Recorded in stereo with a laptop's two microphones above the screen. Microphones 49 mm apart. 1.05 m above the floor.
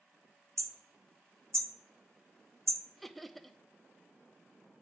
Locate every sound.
0.6 s hammering: 75° right (ahead or behind), 0.9 m
3.0 s laughter: 5° left (ahead or behind), 0.7 m